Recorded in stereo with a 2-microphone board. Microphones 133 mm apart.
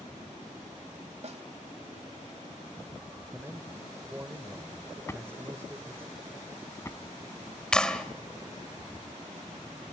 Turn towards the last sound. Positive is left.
turn(degrees=5)  # may be behind; listen again after turning